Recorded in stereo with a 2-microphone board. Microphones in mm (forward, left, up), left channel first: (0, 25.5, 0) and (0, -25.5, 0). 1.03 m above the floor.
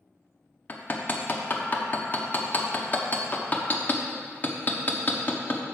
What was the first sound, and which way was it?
Hammering, 35° left (ahead or behind).